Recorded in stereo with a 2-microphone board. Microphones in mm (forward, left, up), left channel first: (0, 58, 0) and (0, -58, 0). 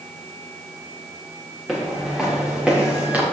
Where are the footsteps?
Centre (ahead or behind), 5 m; by 3.2 s 15° right (ahead or behind), 4.5 m.